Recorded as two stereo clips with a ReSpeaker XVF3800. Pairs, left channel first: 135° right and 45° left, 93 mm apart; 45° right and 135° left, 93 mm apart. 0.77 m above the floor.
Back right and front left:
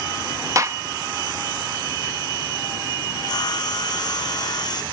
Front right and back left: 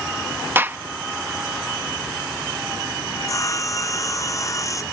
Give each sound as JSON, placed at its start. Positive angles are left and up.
{"t": 0.6, "sound": "a gunshot", "azimuth_deg": 80}
{"t": 3.1, "sound": "sawing", "azimuth_deg": -95}